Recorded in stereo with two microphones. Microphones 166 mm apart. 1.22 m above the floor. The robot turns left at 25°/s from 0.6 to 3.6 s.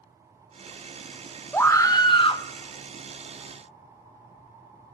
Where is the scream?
15° left (ahead or behind), 1.0 m; by 2.4 s 35° left (ahead or behind), 1.0 m.